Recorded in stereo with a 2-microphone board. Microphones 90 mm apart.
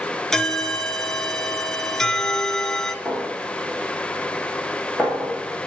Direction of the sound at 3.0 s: 15° right (ahead or behind).